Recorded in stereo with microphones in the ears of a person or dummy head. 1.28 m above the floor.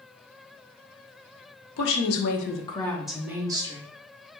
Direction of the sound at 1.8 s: 65° left (ahead or behind).